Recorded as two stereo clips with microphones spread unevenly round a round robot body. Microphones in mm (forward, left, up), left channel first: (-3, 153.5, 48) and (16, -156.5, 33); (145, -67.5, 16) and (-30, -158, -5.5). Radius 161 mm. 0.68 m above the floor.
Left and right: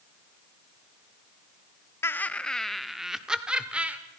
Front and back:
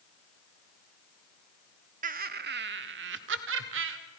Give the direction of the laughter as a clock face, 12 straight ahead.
6 o'clock.